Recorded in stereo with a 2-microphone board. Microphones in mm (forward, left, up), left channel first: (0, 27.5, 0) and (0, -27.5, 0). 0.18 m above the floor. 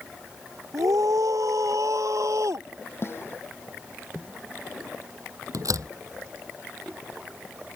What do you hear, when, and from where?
0.7 s a scream: 80° right; by 2.7 s 65° right (ahead or behind)
3.0 s a snare drum: 45° left (ahead or behind)
5.5 s a door slam: 80° right